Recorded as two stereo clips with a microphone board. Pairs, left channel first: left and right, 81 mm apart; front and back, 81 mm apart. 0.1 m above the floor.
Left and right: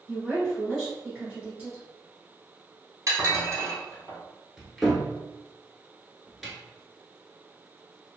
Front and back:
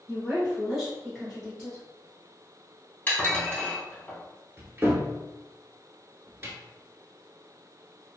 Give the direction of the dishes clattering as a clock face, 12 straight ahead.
2 o'clock.